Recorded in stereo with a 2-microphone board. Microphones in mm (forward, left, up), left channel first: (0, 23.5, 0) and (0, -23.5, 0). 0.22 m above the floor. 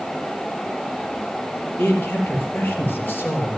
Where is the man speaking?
45° left (ahead or behind), 4.5 m.